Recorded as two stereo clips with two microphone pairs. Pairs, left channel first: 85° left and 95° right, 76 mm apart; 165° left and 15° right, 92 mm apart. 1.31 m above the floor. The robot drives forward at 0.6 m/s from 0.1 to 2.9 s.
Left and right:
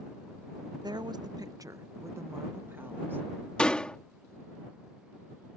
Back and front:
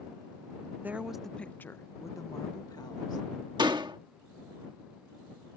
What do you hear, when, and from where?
0.8 s a woman speaking: 90° right; by 3.3 s 155° right
3.6 s a door slam: 10° left